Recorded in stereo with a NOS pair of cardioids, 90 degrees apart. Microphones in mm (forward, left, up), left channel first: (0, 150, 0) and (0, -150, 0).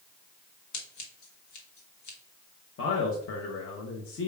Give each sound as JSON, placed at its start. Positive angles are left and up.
{"t": 0.7, "sound": "scissors", "azimuth_deg": 70, "distance_m": 1.2}
{"t": 2.8, "sound": "a man speaking", "azimuth_deg": 45, "distance_m": 0.9}